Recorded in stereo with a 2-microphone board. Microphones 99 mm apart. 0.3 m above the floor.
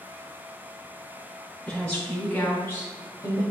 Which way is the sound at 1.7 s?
10° left (ahead or behind).